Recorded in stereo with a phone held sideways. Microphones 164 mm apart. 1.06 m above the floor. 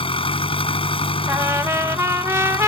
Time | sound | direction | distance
0.0 | an engine running | 35° left (ahead or behind) | ?
1.3 | a trumpet | 15° right (ahead or behind) | ?